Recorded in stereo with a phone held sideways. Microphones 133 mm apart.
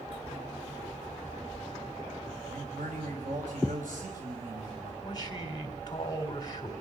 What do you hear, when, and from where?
2.5 s a man speaking: 80° right, 5 m
5.0 s a man speaking: 30° left (ahead or behind), 3.5 m